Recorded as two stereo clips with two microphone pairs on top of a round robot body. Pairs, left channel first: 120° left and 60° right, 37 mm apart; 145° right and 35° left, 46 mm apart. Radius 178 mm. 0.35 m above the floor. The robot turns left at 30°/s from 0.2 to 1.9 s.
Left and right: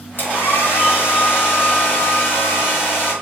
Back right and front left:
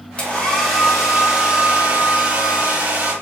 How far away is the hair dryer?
About 3.5 m.